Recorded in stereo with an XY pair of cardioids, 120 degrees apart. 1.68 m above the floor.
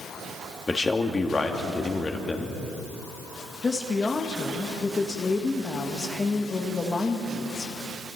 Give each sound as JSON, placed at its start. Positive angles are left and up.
{"t": 0.7, "sound": "a man speaking", "azimuth_deg": 25, "distance_m": 2.5}
{"t": 3.6, "sound": "a woman speaking", "azimuth_deg": 25, "distance_m": 2.0}